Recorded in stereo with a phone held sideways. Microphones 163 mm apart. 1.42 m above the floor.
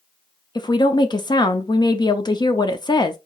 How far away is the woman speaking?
About 0.5 m.